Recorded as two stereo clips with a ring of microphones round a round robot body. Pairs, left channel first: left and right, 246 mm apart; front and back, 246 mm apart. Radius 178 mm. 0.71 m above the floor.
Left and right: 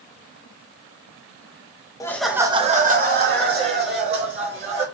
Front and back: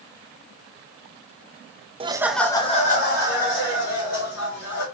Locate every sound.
2.0 s laughter: 145° left, 0.5 m; by 4.8 s 45° right, 2.0 m